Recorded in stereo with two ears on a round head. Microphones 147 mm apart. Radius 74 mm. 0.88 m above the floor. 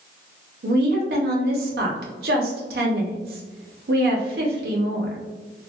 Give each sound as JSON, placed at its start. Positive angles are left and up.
{"t": 0.6, "sound": "a woman speaking", "side_deg": -70, "distance_m": 0.8}